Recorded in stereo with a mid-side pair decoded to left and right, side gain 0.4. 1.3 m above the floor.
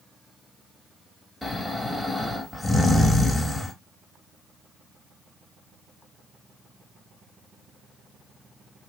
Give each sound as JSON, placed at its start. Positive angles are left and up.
{"t": 1.4, "sound": "snoring", "azimuth_deg": 15, "distance_m": 1.8}